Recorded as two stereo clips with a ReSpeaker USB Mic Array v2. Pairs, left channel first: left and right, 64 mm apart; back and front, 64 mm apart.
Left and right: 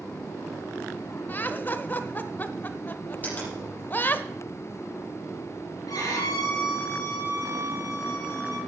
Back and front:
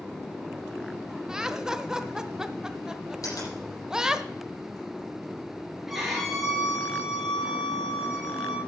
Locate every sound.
1.3 s laughter: 75° left, 0.9 m
3.2 s a finger snap: 150° left, 7.5 m
5.9 s a violin: 85° left, 5 m